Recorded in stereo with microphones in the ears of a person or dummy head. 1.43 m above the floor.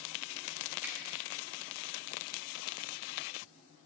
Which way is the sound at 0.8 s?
10° right (ahead or behind).